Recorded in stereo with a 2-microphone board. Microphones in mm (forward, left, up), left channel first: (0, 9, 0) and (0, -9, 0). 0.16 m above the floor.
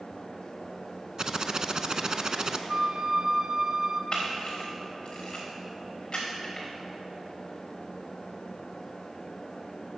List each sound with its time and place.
1.2 s typing on a keyboard: 35° right (ahead or behind), 0.5 m
2.7 s a flute: 30° right (ahead or behind), 0.8 m
4.1 s a camera shutter: 40° left (ahead or behind), 3.5 m